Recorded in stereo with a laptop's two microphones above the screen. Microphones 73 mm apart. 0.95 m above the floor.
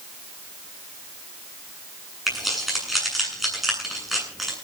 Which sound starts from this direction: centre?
Keys jangling, at 2.3 s.